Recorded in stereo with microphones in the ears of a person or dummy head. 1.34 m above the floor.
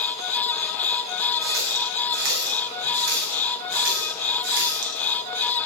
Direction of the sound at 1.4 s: 60° right (ahead or behind).